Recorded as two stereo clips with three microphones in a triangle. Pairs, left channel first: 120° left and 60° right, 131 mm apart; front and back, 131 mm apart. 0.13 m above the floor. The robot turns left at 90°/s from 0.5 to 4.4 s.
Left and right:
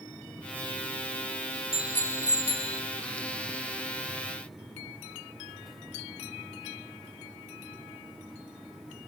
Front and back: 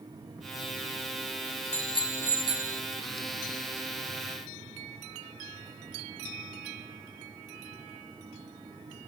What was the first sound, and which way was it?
A bicycle bell, 25° right.